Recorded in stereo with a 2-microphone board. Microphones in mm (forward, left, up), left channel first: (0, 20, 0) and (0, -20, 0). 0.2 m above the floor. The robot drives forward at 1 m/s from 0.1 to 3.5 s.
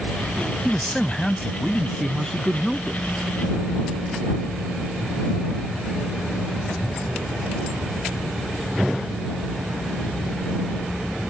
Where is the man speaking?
10° left (ahead or behind); by 3.0 s 5° left (ahead or behind).